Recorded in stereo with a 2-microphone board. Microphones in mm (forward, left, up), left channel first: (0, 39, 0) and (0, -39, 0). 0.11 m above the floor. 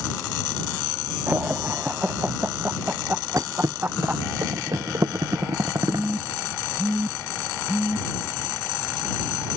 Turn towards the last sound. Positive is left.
turn(degrees=-20)  # may be behind; listen again after turning